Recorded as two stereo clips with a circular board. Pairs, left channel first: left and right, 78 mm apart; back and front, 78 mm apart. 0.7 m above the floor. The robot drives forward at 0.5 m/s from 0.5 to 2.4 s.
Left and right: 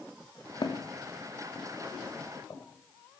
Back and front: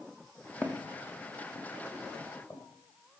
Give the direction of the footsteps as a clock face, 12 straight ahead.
8 o'clock.